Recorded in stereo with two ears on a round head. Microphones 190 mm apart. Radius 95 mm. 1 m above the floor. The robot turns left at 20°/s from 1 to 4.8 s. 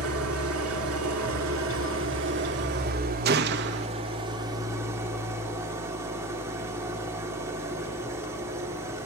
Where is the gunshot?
50° right (ahead or behind), 0.8 m; by 3.9 s 55° right (ahead or behind), 0.8 m.